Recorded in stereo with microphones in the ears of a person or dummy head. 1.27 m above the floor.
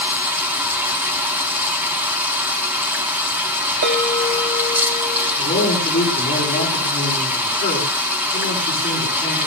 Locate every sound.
0.0 s running water: 10° right (ahead or behind), 1.9 m
3.8 s a bell: 70° right (ahead or behind), 5.5 m
5.4 s a man speaking: 35° left (ahead or behind), 8.5 m